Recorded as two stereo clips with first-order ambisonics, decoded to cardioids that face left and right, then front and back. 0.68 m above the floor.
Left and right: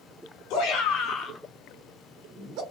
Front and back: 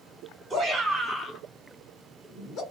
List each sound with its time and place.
0.5 s a shout: 100° left, 1.0 m; by 2.6 s 45° right, 1.3 m